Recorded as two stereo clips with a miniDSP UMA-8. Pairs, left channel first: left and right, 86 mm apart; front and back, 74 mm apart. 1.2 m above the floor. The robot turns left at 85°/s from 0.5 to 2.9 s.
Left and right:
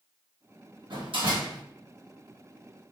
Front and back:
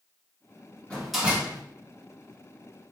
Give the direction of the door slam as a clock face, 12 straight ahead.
2 o'clock.